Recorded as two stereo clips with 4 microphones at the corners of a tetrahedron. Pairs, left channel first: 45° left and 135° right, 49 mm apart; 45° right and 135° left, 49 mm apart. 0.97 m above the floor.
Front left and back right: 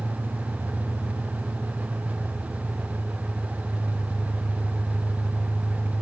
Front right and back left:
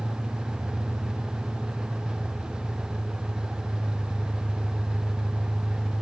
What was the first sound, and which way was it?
An engine running, 150° right.